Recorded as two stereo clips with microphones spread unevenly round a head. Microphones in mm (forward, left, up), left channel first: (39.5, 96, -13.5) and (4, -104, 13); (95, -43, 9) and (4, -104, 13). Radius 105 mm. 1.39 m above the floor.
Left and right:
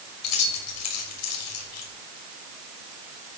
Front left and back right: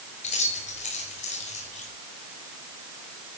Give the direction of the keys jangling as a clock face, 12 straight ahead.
9 o'clock.